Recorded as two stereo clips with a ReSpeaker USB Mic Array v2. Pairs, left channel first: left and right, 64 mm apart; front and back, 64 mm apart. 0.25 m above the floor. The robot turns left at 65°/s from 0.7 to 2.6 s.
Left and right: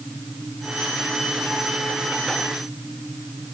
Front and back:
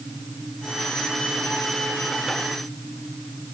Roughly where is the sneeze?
No sneeze in this recording.